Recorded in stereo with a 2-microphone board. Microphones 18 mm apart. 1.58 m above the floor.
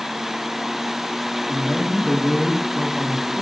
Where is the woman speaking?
20° left (ahead or behind), 2.5 m; by 3.4 s 45° left (ahead or behind), 2.5 m.